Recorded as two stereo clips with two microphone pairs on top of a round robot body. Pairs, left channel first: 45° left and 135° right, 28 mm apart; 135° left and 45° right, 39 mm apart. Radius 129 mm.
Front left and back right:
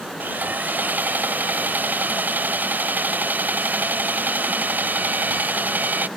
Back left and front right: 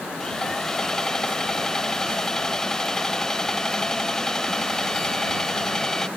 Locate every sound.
0.2 s sawing: 140° right